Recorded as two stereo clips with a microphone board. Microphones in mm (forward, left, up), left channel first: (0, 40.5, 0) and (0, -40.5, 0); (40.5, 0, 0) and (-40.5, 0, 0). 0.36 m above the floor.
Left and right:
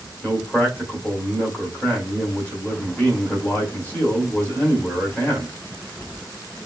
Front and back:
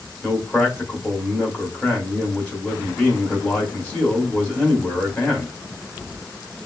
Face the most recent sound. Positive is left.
turn(degrees=55)